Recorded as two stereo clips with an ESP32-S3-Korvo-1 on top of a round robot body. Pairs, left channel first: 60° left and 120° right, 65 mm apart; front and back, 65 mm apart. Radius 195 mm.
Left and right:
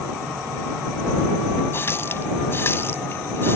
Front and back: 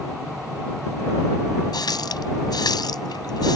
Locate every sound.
1.7 s a running tap: 5° left